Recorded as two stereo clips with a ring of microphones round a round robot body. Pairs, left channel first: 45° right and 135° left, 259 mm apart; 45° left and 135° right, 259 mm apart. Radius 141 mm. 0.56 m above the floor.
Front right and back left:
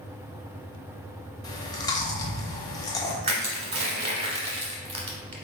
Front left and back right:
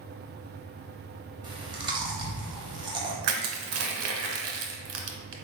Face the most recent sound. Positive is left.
turn(degrees=-160)